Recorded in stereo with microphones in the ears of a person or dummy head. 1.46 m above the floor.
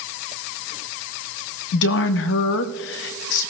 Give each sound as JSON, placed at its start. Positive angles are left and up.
{"t": 1.7, "sound": "a woman speaking", "side_deg": 60, "distance_m": 0.7}